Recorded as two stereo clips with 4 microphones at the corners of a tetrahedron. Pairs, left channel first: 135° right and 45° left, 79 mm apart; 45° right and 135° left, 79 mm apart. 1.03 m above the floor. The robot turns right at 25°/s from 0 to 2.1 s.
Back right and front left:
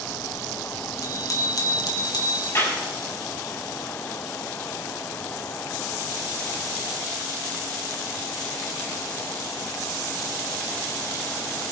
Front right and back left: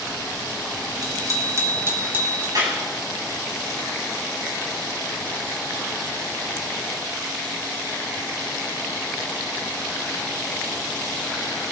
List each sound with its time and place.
1.0 s a bicycle bell: 175° left, 4 m; by 2.5 s 160° right, 4 m
2.5 s a clap: 170° left, 7 m